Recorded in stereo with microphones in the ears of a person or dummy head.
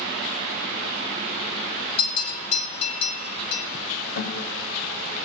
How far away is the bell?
About 4 m.